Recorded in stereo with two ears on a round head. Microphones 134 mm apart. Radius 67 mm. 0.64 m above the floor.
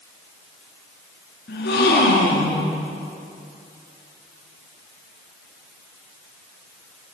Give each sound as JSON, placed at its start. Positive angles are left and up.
{"t": 1.5, "sound": "a gasp", "side_deg": 80, "distance_m": 7.0}